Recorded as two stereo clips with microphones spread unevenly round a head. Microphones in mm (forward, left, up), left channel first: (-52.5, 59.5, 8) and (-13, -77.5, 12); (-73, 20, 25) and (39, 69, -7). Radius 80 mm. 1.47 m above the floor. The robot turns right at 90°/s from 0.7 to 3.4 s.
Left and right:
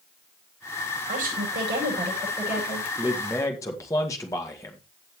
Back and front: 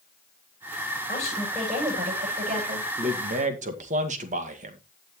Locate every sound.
1.1 s a woman speaking: 115° right, 9.5 m; by 2.9 s 45° left, 9.5 m
3.0 s a man speaking: 5° right, 2 m; by 4.8 s 35° left, 2 m